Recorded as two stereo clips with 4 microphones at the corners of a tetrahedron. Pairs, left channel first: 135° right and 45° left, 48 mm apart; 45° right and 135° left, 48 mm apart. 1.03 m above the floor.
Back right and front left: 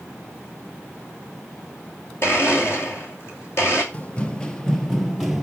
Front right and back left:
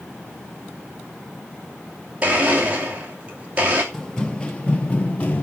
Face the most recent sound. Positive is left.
turn(degrees=-35)